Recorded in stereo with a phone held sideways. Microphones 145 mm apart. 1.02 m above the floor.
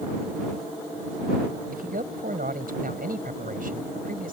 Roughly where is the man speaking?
Right.